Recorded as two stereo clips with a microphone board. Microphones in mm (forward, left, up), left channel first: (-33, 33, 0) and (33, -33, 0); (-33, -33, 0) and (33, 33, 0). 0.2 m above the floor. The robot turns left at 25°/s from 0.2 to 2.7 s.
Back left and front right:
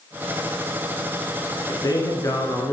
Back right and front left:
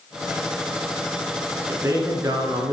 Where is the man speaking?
105° left, 2 m; by 2.7 s 80° left, 2 m.